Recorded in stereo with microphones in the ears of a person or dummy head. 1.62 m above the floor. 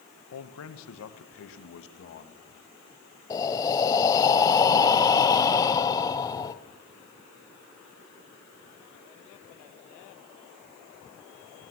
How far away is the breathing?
About 0.8 m.